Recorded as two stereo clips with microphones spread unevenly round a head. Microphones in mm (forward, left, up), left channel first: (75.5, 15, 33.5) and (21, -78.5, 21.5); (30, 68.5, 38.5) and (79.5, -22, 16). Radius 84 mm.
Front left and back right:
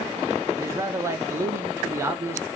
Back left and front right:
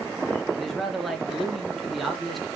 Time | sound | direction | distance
0.6 | a man speaking | 130° right | 0.9 m